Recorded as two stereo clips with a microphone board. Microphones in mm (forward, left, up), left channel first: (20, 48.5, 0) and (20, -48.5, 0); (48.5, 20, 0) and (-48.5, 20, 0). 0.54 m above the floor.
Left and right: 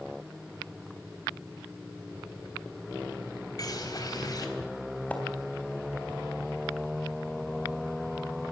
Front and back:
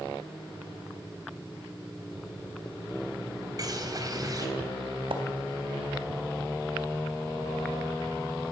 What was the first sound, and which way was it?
A bird, 135° left.